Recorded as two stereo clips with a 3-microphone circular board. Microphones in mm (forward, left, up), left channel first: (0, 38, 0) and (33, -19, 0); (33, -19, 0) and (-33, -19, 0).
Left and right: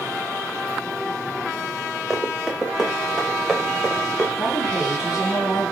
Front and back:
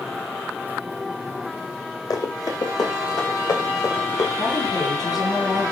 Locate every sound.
2.1 s running footsteps: 25° left, 7 m; by 4.3 s 45° left, 4.5 m
4.4 s a woman speaking: 20° left, 7.5 m